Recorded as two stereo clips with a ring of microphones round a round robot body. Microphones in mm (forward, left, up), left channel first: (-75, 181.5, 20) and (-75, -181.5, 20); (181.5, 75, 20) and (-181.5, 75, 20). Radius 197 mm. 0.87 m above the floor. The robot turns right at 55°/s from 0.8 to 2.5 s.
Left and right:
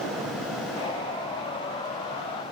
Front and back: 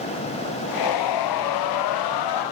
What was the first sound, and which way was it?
Only background noise.